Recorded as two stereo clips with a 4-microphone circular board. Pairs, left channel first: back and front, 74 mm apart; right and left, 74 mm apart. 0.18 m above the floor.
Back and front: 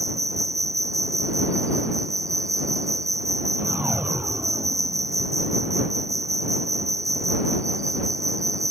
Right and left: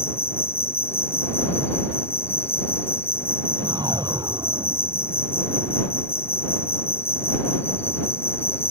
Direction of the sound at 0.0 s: 40° right.